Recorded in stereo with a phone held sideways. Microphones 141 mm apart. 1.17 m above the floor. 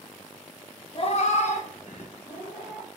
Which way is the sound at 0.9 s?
35° left (ahead or behind).